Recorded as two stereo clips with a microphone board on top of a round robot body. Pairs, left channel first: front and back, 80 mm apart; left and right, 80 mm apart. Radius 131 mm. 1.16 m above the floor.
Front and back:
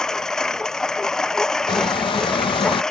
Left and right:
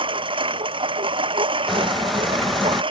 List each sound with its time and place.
0.0 s a lawn mower: 85° right
1.7 s a squeak: straight ahead